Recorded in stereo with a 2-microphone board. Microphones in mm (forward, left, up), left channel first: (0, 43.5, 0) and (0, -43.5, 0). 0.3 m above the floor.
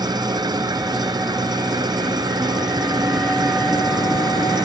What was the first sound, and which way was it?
An engine running, 50° right (ahead or behind).